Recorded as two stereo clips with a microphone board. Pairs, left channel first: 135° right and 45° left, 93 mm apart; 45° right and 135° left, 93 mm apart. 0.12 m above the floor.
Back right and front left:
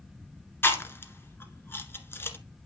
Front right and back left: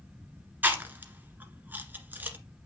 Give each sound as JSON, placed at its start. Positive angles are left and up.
{"t": 0.6, "sound": "chewing", "azimuth_deg": -175, "distance_m": 1.5}